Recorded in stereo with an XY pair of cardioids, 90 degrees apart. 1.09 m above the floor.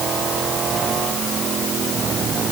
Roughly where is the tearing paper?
I don't hear tearing paper.